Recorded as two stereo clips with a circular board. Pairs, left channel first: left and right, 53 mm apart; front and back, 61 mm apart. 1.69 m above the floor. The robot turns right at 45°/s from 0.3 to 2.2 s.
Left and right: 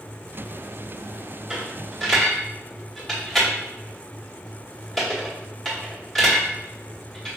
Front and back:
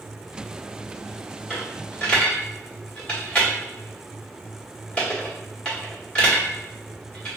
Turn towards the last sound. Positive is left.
turn(degrees=0)